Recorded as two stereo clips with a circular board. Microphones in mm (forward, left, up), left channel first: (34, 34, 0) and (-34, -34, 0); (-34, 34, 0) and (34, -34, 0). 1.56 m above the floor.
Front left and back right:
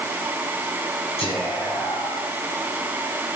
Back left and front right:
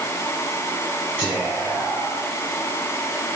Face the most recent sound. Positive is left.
turn(degrees=30)